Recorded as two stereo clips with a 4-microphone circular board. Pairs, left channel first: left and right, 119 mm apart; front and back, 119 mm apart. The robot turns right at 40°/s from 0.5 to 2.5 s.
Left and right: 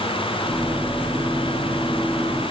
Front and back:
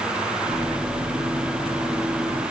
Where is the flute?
No flute in this recording.